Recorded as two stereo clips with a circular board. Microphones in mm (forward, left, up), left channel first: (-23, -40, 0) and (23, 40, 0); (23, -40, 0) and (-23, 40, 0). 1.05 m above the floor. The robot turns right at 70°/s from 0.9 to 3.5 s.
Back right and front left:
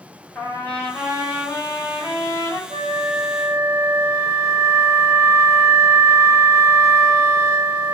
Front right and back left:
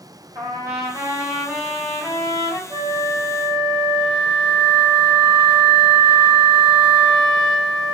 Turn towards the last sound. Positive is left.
turn(degrees=120)